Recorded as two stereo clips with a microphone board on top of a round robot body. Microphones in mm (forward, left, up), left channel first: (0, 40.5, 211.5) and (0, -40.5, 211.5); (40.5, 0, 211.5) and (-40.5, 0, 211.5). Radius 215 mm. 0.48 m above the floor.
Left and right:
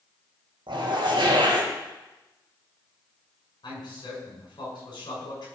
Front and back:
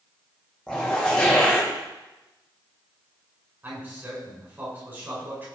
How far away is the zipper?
About 3.5 m.